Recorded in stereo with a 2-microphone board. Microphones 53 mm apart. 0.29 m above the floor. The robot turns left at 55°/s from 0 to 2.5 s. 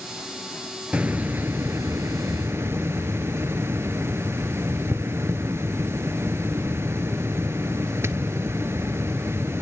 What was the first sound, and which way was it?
A hiss, 25° right.